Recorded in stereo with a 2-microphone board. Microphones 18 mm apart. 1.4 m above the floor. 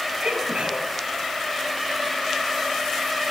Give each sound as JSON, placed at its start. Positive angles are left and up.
{"t": 0.2, "sound": "a sneeze", "side_deg": -85, "distance_m": 10.0}